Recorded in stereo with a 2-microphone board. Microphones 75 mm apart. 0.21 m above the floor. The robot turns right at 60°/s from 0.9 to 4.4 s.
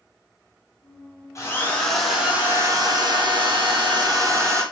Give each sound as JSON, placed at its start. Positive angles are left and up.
{"t": 1.4, "sound": "a drill", "azimuth_deg": 140, "distance_m": 4.0}